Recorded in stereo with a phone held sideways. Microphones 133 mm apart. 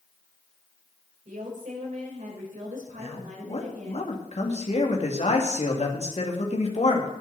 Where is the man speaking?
55° left (ahead or behind), 2.5 m.